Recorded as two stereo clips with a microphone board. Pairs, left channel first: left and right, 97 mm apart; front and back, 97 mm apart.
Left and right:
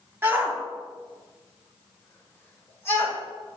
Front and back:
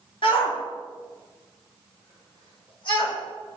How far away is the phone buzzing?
No phone buzzing in this recording.